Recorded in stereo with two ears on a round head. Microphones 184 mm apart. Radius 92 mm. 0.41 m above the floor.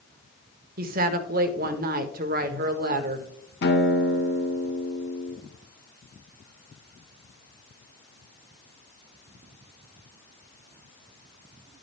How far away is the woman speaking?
About 1.1 m.